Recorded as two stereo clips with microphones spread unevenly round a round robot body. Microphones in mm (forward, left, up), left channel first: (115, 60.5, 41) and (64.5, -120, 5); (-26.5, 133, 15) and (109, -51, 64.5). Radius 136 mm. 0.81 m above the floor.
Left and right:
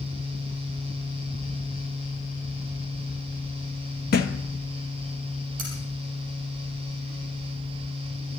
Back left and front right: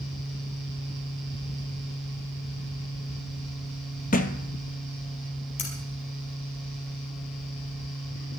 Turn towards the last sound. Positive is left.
turn(degrees=-170)